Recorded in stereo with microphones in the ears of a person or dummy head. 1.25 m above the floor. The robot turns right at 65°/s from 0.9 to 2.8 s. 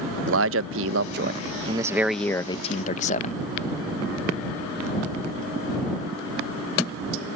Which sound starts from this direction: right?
A man speaking, at 0.3 s.